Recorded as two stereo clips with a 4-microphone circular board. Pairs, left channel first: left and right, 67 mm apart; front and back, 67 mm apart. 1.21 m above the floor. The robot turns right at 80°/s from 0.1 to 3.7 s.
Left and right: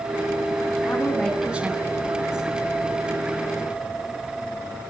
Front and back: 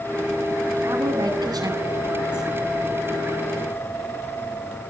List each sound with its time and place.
0.9 s a woman speaking: 140° left, 9.5 m; by 2.5 s 90° right, 9.5 m